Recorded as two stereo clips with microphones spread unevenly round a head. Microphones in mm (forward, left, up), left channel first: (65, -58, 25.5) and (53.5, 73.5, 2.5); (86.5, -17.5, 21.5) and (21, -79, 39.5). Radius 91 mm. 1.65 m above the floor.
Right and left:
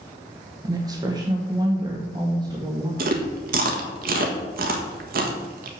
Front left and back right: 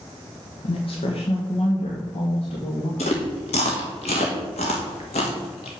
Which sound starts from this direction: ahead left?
A woman speaking, at 0.6 s.